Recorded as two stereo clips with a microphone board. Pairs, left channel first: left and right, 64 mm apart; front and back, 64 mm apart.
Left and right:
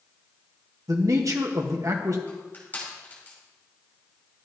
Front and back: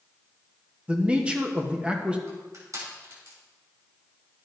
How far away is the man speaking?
About 1.1 m.